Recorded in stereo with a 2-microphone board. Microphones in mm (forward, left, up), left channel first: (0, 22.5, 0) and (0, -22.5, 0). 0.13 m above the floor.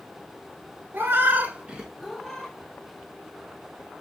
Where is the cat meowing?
50° right (ahead or behind), 0.9 m; by 2.5 s 20° left (ahead or behind), 0.8 m.